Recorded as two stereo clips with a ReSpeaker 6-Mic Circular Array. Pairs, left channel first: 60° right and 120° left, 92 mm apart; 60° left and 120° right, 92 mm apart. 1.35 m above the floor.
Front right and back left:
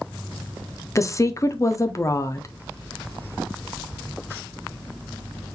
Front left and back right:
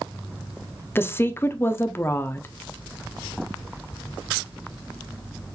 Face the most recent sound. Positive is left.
turn(degrees=-5)